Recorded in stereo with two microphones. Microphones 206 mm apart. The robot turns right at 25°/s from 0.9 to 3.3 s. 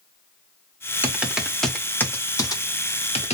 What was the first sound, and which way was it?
Typing on a keyboard, 10° right (ahead or behind).